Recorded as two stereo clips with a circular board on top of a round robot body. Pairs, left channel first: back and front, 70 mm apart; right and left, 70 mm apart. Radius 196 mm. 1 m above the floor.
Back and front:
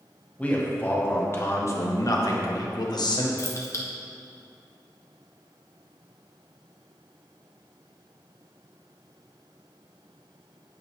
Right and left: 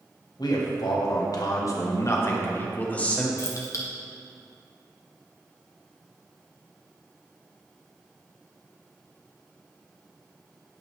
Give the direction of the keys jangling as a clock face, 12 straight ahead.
5 o'clock.